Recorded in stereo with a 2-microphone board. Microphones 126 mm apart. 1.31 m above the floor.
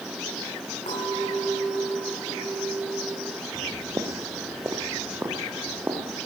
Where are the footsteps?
25° right (ahead or behind), 1.4 m; by 6.2 s 15° right (ahead or behind), 3 m.